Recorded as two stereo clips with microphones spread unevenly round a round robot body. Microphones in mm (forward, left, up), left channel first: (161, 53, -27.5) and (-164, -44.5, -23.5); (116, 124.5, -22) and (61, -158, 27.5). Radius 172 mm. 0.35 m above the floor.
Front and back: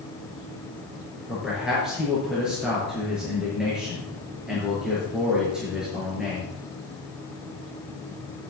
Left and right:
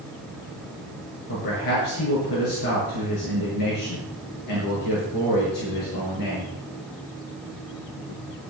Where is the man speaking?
110° left, 5.5 m.